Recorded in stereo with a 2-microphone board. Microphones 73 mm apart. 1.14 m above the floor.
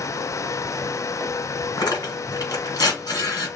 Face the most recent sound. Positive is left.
turn(degrees=60)  # may be behind; listen again after turning